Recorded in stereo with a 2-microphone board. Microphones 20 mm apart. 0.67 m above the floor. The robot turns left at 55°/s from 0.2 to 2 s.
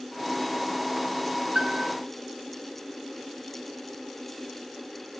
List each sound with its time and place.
1.6 s a piano: 45° right (ahead or behind), 1.8 m; by 1.9 s 60° right (ahead or behind), 1.8 m